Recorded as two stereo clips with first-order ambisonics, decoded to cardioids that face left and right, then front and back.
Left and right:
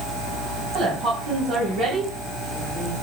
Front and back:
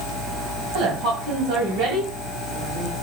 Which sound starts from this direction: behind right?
A woman speaking, at 0.7 s.